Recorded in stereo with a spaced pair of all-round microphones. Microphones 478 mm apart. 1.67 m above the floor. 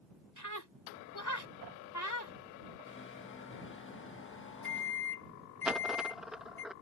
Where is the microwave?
25° left (ahead or behind).